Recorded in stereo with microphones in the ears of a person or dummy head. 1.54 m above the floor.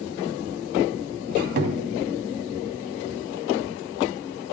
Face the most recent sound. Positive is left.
turn(degrees=-50)  # may be behind; listen again after turning